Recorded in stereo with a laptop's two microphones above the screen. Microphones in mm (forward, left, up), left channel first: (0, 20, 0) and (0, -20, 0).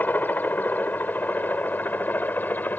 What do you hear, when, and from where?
0.0 s a helicopter: 45° left (ahead or behind)